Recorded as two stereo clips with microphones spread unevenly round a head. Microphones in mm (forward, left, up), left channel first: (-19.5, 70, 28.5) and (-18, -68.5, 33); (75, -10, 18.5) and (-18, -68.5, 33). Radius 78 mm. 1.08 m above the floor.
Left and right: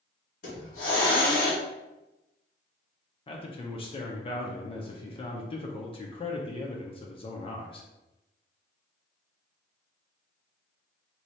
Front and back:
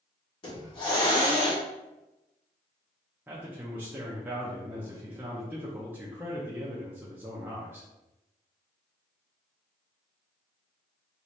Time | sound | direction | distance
0.4 | a hiss | 75° left | 1.6 m
3.3 | a man speaking | 135° left | 0.5 m